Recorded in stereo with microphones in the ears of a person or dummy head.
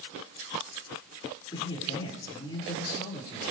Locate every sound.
1.5 s a man speaking: 20° left (ahead or behind), 5.5 m